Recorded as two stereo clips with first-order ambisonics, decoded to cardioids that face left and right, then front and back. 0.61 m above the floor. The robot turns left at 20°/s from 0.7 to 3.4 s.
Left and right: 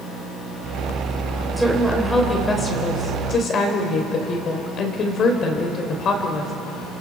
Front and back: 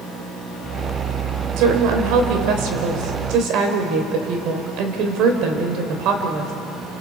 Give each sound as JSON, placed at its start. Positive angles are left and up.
{"t": 1.6, "sound": "a woman speaking", "azimuth_deg": -175, "distance_m": 3.0}